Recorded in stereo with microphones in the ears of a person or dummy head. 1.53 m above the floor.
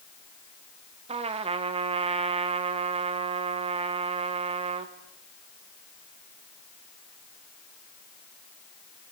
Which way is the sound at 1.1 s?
30° right (ahead or behind).